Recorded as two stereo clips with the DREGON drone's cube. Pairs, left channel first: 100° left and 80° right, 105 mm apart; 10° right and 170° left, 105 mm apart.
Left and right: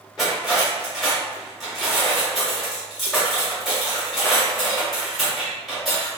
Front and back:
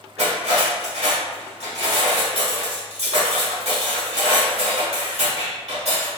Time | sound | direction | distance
0.2 | cutlery clinking | 165° right | 1.5 m